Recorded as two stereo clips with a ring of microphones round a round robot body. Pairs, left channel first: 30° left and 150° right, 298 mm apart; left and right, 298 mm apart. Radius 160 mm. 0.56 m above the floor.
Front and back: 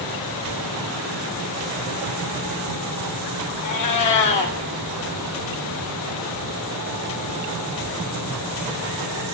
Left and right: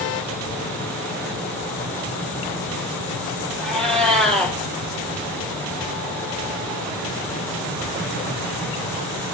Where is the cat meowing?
Straight ahead, 3 m.